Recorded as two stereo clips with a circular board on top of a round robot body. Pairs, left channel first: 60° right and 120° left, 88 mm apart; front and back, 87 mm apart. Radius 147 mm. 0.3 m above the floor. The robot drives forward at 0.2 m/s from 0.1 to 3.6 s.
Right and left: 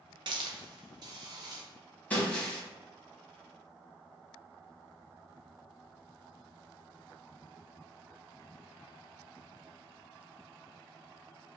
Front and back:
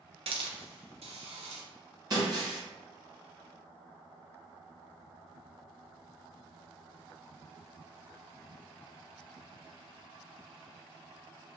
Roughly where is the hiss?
Behind.